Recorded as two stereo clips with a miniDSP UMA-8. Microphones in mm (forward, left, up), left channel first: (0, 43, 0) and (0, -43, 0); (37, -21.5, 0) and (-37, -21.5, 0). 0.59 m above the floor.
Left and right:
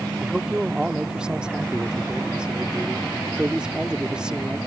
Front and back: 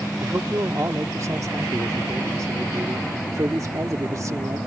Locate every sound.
0.2 s a man speaking: 165° right